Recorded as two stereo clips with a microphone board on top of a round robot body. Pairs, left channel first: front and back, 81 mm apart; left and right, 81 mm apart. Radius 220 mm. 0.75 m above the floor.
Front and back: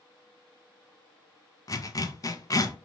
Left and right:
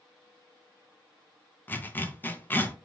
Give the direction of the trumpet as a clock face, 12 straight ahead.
I don't hear a trumpet.